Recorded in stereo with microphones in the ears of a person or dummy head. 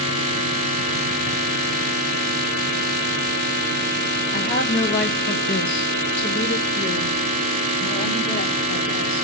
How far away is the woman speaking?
About 0.8 m.